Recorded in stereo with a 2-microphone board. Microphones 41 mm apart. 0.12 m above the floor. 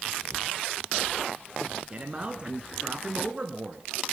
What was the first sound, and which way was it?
A man speaking, 25° right (ahead or behind).